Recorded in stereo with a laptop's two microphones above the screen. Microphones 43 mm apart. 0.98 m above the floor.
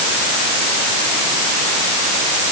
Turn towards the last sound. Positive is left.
No sound to turn to.